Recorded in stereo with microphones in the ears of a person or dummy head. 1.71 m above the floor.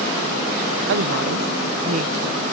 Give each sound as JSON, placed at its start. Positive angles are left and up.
{"t": 0.9, "sound": "a woman speaking", "side_deg": -75}